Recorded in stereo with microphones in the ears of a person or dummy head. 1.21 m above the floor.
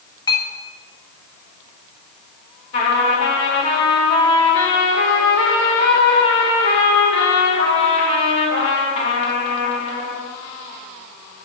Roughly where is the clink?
Centre.